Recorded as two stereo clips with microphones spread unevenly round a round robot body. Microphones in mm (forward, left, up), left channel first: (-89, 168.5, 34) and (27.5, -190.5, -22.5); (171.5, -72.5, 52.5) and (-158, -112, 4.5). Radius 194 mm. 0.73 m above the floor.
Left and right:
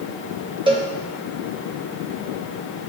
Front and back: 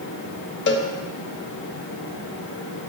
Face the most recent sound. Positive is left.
turn(degrees=-30)